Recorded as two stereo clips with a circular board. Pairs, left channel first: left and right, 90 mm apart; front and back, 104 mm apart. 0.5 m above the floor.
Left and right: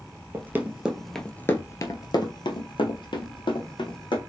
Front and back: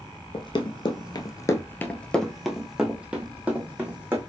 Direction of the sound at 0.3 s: 30° right.